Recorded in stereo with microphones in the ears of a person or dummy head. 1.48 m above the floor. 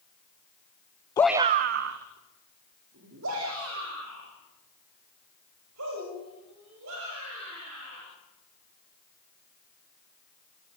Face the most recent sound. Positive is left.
turn(degrees=-85)